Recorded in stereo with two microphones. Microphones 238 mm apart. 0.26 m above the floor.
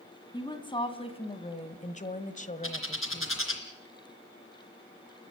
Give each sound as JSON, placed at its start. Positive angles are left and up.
{"t": 0.3, "sound": "a woman speaking", "side_deg": 20, "distance_m": 2.0}
{"t": 2.6, "sound": "a bird", "side_deg": 60, "distance_m": 3.0}